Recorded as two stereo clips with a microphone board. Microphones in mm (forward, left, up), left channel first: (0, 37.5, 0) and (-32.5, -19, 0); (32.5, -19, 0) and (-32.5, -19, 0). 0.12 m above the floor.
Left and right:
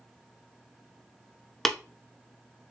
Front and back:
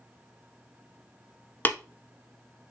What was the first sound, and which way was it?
Tapping, 25° right.